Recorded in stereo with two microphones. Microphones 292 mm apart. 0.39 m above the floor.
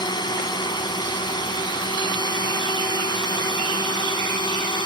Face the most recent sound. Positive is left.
turn(degrees=15)  # may be behind; listen again after turning